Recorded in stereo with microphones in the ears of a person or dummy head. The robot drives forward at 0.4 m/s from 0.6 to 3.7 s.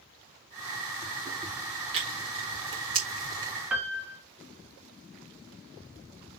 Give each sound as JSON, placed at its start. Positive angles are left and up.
{"t": 1.9, "sound": "tearing paper", "side_deg": -30, "distance_m": 1.7}
{"t": 3.7, "sound": "a piano", "side_deg": -10, "distance_m": 1.2}